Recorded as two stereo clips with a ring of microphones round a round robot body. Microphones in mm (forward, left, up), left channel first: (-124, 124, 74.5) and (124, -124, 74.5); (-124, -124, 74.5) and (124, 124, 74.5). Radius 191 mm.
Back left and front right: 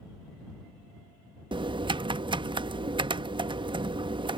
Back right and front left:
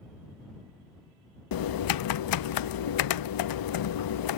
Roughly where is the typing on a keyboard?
Behind right.